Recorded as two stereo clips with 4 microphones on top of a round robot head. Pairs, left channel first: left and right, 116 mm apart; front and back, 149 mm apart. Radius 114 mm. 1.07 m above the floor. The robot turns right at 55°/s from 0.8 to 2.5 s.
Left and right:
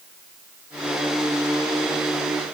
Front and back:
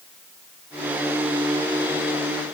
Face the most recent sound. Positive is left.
No sound to turn to.